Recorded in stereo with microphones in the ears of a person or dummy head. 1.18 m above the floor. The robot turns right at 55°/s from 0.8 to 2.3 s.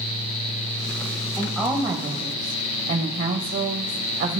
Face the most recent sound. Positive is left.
turn(degrees=-125)